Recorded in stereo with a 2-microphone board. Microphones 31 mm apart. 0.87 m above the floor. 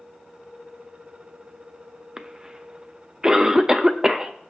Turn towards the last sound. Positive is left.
turn(degrees=-20)  # may be behind; listen again after turning